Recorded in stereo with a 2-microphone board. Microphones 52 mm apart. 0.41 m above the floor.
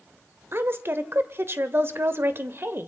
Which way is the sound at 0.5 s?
45° right (ahead or behind).